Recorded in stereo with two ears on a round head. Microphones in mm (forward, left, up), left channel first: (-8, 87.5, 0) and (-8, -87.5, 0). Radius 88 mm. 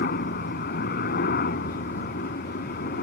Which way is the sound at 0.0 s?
50° left (ahead or behind).